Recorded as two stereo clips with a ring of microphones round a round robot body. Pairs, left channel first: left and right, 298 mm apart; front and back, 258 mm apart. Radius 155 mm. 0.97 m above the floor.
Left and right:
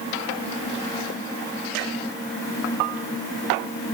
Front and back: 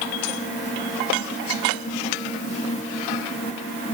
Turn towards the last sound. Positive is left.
No sound to turn to.